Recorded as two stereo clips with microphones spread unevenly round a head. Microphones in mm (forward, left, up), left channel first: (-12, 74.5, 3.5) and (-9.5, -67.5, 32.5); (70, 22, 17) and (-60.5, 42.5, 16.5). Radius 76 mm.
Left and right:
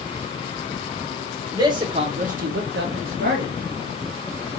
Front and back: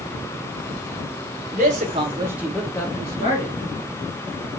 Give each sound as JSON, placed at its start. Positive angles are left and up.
{"t": 1.5, "sound": "a man speaking", "azimuth_deg": -150, "distance_m": 1.3}